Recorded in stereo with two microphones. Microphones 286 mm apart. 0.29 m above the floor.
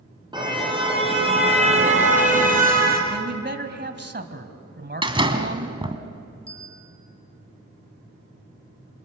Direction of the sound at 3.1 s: 40° right (ahead or behind).